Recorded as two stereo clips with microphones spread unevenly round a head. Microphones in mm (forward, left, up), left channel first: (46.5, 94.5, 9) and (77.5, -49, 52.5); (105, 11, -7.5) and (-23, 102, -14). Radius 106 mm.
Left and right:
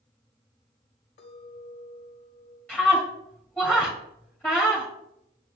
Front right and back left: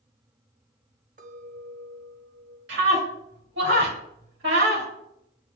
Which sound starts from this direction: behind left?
A clink, at 1.2 s.